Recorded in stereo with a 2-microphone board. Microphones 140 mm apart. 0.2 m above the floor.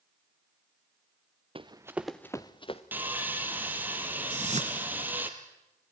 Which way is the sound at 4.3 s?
55° right (ahead or behind).